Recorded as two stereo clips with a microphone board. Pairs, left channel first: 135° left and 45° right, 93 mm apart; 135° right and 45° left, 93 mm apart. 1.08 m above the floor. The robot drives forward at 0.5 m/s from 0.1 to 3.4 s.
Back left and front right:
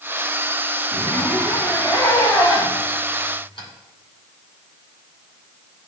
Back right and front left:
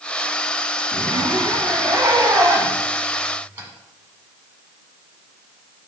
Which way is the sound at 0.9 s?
70° left.